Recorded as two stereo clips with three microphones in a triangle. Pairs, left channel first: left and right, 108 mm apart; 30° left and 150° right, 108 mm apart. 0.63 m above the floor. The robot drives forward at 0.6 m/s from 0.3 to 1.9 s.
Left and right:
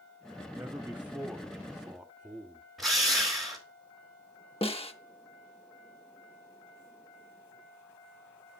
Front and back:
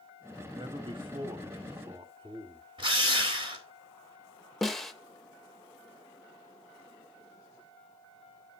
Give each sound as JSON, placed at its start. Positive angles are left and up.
{"t": 0.5, "sound": "a man speaking", "azimuth_deg": -160, "distance_m": 1.2}
{"t": 2.8, "sound": "a drill", "azimuth_deg": 180, "distance_m": 2.0}
{"t": 4.6, "sound": "a snare drum", "azimuth_deg": 115, "distance_m": 0.9}